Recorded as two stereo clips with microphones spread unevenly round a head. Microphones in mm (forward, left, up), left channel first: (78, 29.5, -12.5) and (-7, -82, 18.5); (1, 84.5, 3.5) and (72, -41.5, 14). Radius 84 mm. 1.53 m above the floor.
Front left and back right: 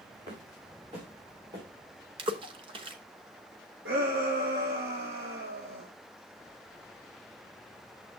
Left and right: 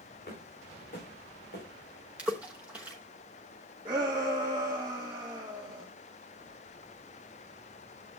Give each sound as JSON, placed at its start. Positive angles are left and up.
{"t": 0.3, "sound": "footsteps", "azimuth_deg": 175, "distance_m": 7.5}
{"t": 2.2, "sound": "a splash", "azimuth_deg": -135, "distance_m": 0.9}
{"t": 3.9, "sound": "a shout", "azimuth_deg": -130, "distance_m": 1.8}